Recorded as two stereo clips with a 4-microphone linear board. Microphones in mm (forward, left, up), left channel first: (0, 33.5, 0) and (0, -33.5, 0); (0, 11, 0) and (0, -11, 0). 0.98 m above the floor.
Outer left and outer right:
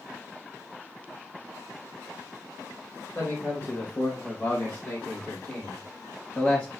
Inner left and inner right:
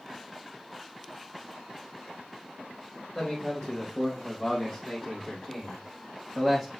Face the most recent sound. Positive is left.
turn(degrees=15)  # may be behind; listen again after turning